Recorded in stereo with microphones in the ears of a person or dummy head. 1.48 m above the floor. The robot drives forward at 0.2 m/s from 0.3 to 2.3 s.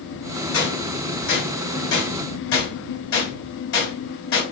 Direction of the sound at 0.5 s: 80° left.